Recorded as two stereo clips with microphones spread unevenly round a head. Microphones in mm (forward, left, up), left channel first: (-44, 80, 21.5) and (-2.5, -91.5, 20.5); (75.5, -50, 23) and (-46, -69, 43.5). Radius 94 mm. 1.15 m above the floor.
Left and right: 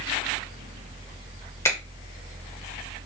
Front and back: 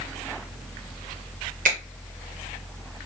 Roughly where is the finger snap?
Behind.